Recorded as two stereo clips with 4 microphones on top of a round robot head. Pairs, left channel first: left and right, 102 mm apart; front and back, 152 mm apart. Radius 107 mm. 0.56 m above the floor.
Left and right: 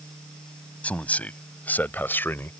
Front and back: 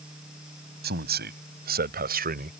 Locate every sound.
0.8 s a man speaking: 165° left; by 2.5 s 160° left